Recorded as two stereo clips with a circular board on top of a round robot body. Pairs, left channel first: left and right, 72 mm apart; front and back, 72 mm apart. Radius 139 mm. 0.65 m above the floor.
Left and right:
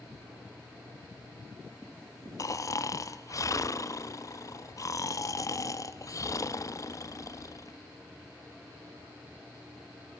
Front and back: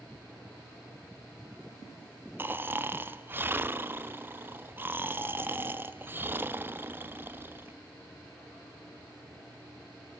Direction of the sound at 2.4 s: 125° left.